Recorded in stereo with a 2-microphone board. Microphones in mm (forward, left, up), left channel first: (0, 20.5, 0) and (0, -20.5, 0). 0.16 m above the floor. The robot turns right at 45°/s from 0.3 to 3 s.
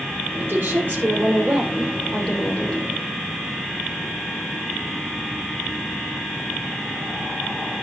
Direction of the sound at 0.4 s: 65° right.